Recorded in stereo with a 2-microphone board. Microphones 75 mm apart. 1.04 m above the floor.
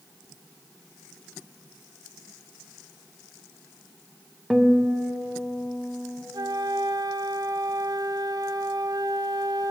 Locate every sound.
4.5 s a guitar: 5° right (ahead or behind), 0.7 m
6.3 s a flute: 60° right (ahead or behind), 0.6 m